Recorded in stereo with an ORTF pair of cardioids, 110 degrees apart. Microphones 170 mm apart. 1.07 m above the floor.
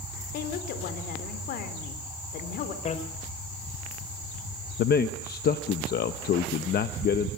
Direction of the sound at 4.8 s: 70° left.